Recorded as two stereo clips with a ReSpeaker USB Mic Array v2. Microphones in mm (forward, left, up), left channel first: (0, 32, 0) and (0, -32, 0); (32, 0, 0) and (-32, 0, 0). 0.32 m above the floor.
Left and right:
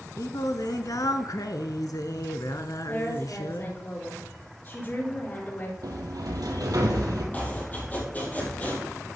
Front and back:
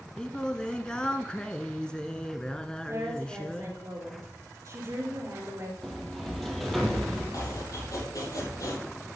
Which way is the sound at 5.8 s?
85° right.